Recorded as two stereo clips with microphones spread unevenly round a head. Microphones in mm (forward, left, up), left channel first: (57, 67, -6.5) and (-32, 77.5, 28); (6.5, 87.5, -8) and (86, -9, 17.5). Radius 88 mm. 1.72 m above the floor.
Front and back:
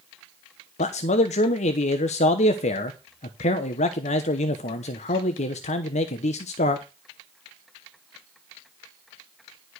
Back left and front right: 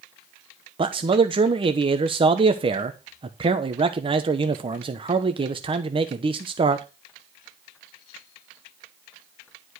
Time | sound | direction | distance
0.8 | a man speaking | 15° right | 0.9 m